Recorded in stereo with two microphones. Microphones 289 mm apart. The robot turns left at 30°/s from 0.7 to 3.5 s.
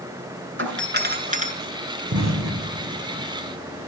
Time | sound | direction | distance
0.6 | a doorbell | 40° right (ahead or behind) | 4 m
2.1 | an explosion | 65° right (ahead or behind) | 4 m